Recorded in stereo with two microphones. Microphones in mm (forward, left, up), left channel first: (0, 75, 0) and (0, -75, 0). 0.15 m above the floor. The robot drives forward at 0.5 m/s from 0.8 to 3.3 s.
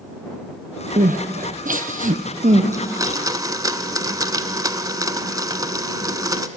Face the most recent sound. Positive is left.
turn(degrees=-25)  # may be behind; listen again after turning